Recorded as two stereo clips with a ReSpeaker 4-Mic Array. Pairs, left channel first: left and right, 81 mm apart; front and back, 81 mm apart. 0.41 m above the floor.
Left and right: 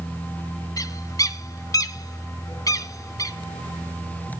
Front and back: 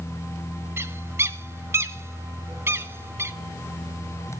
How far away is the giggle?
No giggle in this recording.